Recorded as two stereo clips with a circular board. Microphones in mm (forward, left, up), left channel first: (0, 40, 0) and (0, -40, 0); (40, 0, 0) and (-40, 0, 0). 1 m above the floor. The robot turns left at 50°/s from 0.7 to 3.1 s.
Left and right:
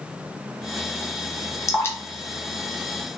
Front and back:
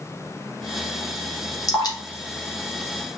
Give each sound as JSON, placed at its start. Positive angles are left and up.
{"t": 1.7, "sound": "dripping", "azimuth_deg": 45, "distance_m": 0.7}